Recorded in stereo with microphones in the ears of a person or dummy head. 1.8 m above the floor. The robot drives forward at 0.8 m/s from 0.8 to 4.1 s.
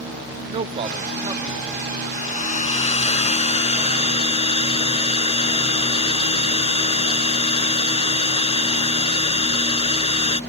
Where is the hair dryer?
35° left (ahead or behind); by 10.4 s 30° left (ahead or behind).